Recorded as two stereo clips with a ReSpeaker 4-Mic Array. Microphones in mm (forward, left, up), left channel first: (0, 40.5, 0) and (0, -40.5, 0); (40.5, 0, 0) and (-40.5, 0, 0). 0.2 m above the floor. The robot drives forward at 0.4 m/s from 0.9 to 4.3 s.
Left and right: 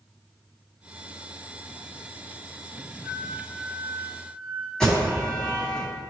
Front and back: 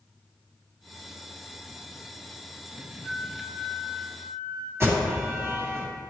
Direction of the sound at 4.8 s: 165° left.